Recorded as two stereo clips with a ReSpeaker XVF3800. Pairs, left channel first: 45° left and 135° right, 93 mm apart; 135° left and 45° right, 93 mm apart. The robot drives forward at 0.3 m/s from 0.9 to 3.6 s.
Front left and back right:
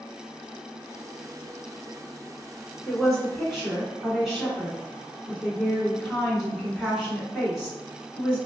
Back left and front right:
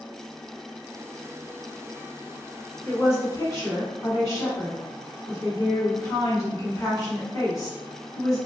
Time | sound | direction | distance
2.9 | a woman speaking | 130° left | 1.5 m